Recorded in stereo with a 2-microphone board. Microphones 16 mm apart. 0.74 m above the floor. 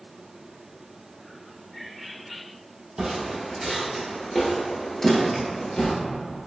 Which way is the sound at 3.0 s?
45° right (ahead or behind).